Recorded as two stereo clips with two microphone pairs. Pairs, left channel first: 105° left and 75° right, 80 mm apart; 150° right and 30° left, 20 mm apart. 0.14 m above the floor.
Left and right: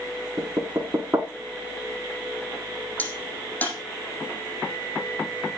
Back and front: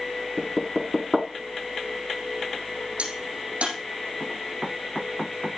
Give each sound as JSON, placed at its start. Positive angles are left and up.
{"t": 0.4, "sound": "knocking", "azimuth_deg": -50, "distance_m": 1.0}
{"t": 3.0, "sound": "a crack", "azimuth_deg": 35, "distance_m": 5.0}